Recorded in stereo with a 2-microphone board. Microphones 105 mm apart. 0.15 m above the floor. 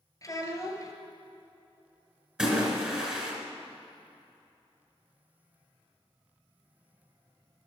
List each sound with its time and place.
0.2 s a child speaking: 35° left (ahead or behind), 1.5 m
2.4 s a splash: 10° right (ahead or behind), 2 m